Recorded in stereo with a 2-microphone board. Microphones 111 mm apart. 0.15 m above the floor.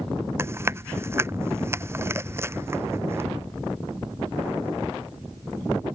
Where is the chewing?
20° right (ahead or behind).